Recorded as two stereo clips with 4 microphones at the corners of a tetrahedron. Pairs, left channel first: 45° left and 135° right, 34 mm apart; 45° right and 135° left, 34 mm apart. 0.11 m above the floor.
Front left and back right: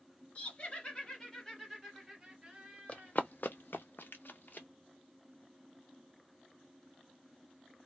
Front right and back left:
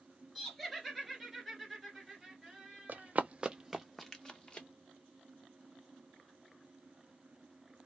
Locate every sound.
0.3 s laughter: 30° left, 1.4 m; by 3.1 s 140° right, 1.2 m
2.9 s running footsteps: 100° left, 0.6 m; by 4.7 s 15° left, 0.9 m